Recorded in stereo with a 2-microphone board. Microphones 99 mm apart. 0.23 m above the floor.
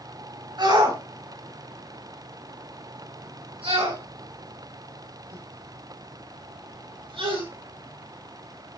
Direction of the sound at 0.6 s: 45° right (ahead or behind).